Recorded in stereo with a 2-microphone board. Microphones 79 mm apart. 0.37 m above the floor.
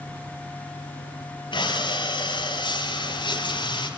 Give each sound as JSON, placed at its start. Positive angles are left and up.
{"t": 1.5, "sound": "breathing", "side_deg": 85, "distance_m": 4.5}